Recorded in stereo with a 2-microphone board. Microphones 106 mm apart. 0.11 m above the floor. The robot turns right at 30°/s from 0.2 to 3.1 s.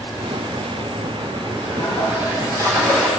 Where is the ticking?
I don't hear ticking.